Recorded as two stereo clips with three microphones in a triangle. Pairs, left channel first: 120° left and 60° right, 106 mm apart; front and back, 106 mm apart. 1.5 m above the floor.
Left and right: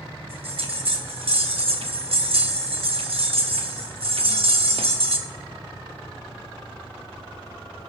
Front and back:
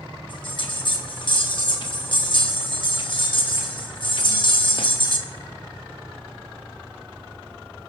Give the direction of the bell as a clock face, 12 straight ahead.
1 o'clock.